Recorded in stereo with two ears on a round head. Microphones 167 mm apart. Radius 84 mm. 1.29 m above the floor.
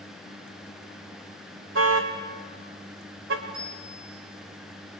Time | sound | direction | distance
1.8 | a car horn | 75° right (ahead or behind) | 2.5 m
3.5 | a bicycle bell | 25° right (ahead or behind) | 5 m